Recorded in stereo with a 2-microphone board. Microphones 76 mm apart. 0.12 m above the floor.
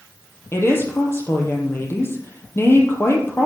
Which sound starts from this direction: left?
A woman speaking, at 0.5 s.